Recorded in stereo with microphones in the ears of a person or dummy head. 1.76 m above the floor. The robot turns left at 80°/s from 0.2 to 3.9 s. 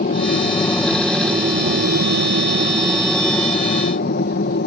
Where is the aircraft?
60° left; by 4.7 s 125° left.